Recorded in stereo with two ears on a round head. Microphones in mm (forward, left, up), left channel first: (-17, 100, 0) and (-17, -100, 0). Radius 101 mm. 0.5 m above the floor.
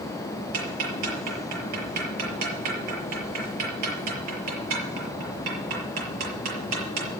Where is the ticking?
85° right, 6 m.